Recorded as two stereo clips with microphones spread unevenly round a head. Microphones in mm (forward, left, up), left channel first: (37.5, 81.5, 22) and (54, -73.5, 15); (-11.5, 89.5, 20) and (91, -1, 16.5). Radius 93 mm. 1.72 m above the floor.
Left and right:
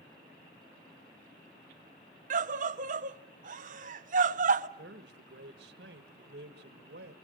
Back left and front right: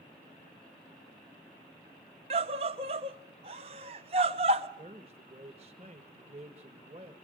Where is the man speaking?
95° right, 1.6 m.